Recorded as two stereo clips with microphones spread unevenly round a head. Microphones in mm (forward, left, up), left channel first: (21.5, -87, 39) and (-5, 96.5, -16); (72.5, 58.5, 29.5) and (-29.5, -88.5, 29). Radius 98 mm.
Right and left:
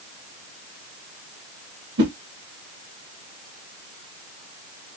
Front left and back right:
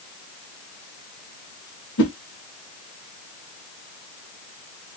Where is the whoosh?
80° left, 0.8 m.